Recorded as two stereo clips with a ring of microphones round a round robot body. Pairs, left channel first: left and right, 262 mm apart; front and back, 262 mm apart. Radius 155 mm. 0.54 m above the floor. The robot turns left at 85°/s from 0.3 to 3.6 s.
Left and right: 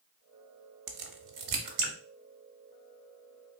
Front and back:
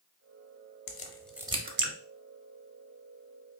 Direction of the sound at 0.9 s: 55° right.